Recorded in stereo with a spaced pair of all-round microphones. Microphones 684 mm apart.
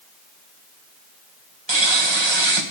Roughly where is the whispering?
No whispering in this recording.